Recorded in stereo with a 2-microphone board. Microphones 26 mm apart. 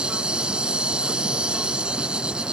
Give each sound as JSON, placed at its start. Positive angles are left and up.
{"t": 0.0, "sound": "an insect", "side_deg": -40}